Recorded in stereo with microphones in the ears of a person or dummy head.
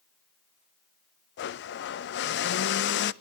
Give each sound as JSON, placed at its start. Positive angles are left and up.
{"t": 1.4, "sound": "a blender", "side_deg": 55, "distance_m": 0.5}